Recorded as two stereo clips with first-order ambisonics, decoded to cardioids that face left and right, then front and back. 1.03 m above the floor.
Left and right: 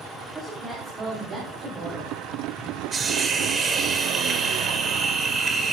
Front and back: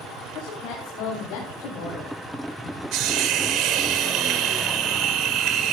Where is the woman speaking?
20° right, 3 m; by 2.1 s 35° right, 5 m.